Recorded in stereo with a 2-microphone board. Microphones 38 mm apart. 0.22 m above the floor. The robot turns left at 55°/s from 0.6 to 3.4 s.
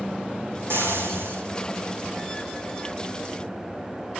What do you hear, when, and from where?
0.7 s frying: 70° right, 8 m; by 1.4 s 110° right, 8 m